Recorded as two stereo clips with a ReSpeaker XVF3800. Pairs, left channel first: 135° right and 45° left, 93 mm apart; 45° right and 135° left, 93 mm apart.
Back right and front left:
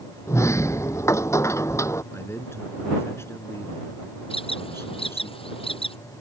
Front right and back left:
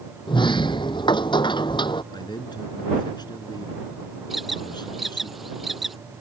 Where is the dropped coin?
I don't hear a dropped coin.